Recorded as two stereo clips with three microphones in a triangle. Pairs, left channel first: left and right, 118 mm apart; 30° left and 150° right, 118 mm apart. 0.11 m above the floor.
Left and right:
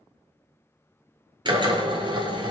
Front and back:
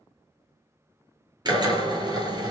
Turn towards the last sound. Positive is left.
turn(degrees=-115)